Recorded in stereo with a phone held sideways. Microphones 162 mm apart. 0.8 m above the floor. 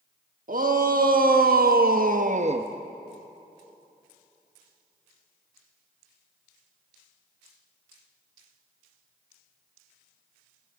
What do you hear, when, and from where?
0.5 s a shout: 60° right (ahead or behind), 1.3 m; by 2.7 s 35° right (ahead or behind), 0.6 m